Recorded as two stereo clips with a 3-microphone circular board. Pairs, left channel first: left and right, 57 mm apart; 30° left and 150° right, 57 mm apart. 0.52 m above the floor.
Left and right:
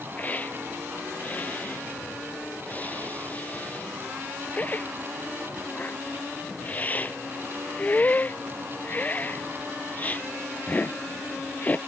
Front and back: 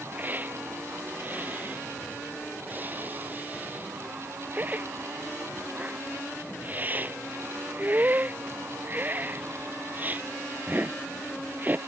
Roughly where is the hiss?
Behind left.